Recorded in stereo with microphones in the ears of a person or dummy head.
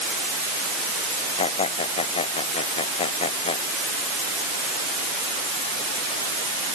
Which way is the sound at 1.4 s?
35° left (ahead or behind).